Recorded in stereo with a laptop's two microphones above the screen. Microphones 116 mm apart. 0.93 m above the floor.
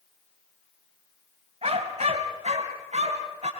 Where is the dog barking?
65° right (ahead or behind), 2.5 m; by 3.5 s 75° right (ahead or behind), 4 m.